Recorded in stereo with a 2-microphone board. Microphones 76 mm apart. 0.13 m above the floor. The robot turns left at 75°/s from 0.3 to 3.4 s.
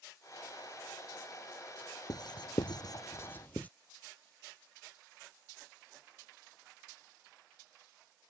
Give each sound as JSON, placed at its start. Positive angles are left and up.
{"t": 2.1, "sound": "writing", "side_deg": 55}